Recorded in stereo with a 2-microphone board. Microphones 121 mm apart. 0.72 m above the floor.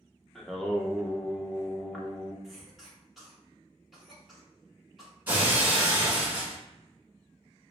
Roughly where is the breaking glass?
Centre.